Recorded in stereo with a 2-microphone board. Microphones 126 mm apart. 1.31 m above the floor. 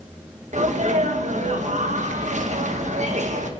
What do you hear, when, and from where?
0.5 s a sneeze: 70° right (ahead or behind), 1.5 m